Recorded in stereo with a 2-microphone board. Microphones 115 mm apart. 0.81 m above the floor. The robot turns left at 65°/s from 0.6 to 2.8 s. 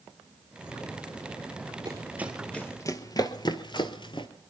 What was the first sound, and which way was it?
Running footsteps, 40° right (ahead or behind).